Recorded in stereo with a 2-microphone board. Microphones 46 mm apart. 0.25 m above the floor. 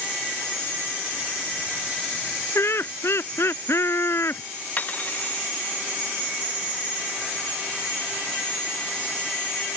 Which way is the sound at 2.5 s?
65° left (ahead or behind).